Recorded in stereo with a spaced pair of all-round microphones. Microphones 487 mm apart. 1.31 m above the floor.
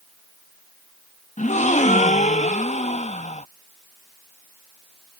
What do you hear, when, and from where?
1.4 s a gasp: 15° left (ahead or behind)